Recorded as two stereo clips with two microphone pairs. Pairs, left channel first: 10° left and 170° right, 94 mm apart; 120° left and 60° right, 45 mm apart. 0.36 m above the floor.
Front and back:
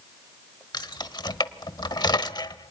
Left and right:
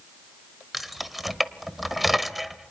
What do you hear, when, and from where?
0.7 s keys jangling: 25° left, 1.0 m